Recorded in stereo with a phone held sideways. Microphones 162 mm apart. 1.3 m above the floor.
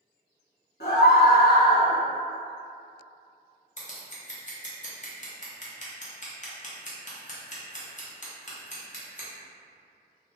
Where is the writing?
No writing in this recording.